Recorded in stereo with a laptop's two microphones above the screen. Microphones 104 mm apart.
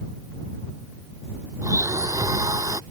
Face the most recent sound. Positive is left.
turn(degrees=-35)  # may be behind; listen again after turning